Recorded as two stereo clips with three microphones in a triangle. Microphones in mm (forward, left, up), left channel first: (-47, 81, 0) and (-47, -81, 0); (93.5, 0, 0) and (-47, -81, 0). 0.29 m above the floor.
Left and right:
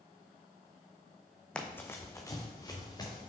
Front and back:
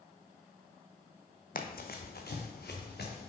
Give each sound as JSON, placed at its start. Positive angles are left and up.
{"t": 1.6, "sound": "running footsteps", "azimuth_deg": 5, "distance_m": 0.7}